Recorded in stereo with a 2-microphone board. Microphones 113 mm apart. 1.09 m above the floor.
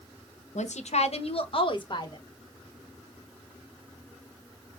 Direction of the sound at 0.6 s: 85° left.